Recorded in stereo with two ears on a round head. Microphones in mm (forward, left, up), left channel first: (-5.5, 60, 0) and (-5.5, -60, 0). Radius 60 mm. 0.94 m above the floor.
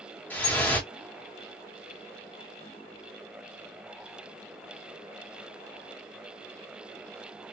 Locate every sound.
0.3 s dripping: 10° left (ahead or behind), 1.3 m